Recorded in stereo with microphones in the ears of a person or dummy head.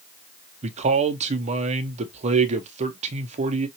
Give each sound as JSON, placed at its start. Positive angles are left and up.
{"t": 0.6, "sound": "a man speaking", "side_deg": -35, "distance_m": 0.7}